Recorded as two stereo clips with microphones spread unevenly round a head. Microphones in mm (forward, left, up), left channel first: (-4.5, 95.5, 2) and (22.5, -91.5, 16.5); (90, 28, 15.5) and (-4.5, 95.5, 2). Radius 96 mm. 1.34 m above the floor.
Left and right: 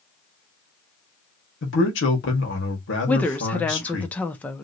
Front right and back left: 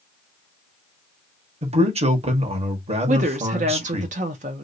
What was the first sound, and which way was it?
A man speaking, 120° left.